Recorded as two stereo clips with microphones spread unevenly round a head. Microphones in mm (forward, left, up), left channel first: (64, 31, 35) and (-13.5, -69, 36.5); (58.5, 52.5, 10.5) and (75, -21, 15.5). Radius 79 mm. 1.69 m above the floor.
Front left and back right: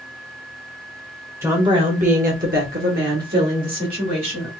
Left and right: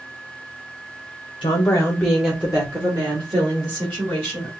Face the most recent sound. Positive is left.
turn(degrees=-130)